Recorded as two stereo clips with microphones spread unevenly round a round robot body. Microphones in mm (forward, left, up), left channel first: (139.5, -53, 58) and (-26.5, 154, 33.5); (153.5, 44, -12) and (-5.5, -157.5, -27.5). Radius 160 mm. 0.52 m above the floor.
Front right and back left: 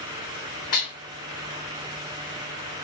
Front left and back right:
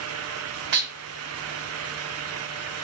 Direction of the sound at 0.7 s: 115° right.